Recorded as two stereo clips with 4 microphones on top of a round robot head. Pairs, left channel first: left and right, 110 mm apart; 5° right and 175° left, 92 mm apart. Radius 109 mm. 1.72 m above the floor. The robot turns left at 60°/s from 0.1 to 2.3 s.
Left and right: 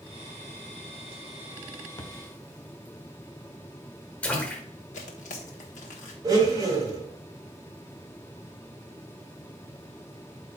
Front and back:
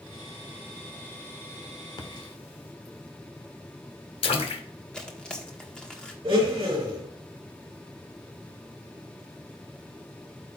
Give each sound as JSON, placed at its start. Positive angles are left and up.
{"t": 2.0, "sound": "a splash", "azimuth_deg": 30, "distance_m": 1.0}
{"t": 4.9, "sound": "tearing paper", "azimuth_deg": 75, "distance_m": 1.2}
{"t": 6.2, "sound": "a blender", "azimuth_deg": -140, "distance_m": 3.5}